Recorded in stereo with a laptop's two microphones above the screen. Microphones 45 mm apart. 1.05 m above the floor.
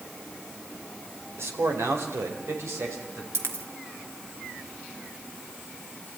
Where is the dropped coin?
70° right (ahead or behind), 1.8 m.